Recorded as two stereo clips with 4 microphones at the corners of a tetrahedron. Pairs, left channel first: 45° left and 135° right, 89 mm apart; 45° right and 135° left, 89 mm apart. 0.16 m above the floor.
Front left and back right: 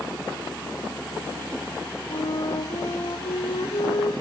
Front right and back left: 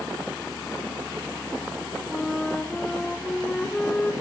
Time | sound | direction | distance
2.1 | a flute | 30° left | 2 m